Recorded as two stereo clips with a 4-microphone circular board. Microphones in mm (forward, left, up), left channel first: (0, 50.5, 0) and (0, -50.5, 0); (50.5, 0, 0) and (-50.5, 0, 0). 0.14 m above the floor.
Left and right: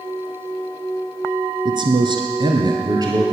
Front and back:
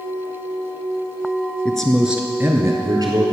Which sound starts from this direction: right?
A man speaking, at 1.6 s.